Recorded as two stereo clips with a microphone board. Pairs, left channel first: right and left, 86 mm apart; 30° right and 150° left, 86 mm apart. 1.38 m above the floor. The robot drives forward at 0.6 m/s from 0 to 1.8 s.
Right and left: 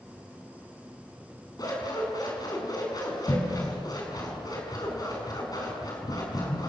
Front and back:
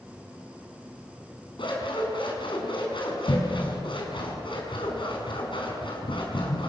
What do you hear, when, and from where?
1.6 s scissors: 45° right, 6.5 m; by 6.7 s 50° right, 6 m